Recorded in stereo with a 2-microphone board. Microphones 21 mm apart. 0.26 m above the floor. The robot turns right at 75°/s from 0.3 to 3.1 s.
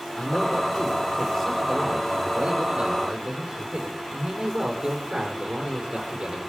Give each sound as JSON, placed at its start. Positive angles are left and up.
{"t": 0.2, "sound": "a man speaking", "azimuth_deg": 80, "distance_m": 6.0}